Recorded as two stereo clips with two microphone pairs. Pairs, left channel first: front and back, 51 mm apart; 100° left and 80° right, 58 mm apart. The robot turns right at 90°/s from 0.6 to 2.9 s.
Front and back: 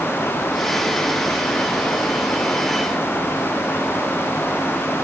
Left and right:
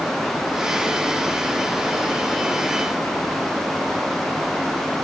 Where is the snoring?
No snoring in this recording.